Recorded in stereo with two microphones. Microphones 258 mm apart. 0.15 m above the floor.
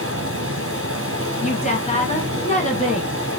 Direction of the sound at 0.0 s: 60° right (ahead or behind).